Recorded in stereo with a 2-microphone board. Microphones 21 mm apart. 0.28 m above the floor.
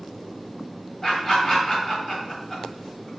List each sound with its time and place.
1.0 s laughter: 25° left (ahead or behind), 1.6 m